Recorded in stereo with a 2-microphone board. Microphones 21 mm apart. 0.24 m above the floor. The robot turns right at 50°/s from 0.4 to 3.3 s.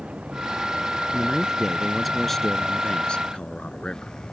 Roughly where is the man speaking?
Ahead right.